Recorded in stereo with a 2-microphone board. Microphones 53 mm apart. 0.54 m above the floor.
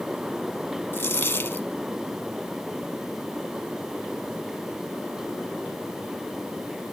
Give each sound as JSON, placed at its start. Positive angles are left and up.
{"t": 0.9, "sound": "a dropped coin", "side_deg": 50}